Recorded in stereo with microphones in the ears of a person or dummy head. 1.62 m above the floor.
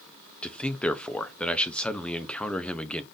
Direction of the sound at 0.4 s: 10° left (ahead or behind).